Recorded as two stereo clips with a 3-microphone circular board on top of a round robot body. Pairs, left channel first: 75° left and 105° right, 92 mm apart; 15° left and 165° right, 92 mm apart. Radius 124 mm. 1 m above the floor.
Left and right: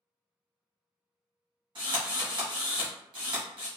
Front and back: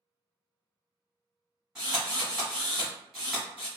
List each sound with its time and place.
1.8 s a drill: 80° right, 1.0 m